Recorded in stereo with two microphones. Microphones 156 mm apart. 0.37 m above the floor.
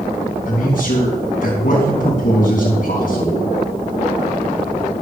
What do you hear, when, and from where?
0.5 s a man speaking: 60° left (ahead or behind), 4 m